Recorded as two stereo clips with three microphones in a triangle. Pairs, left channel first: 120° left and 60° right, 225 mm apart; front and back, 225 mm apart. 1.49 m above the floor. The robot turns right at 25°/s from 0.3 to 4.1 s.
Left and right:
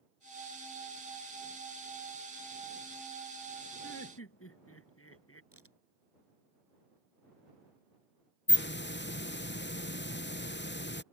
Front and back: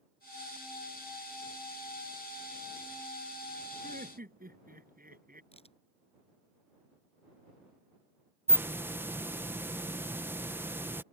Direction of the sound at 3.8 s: 125° left.